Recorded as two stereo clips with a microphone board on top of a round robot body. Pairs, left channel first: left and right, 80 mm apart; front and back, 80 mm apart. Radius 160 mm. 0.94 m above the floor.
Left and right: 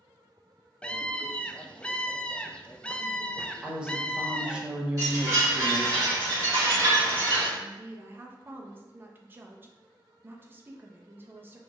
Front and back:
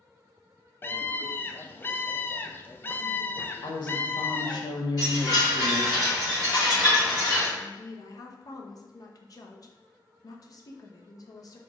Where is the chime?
40° right, 1.9 m.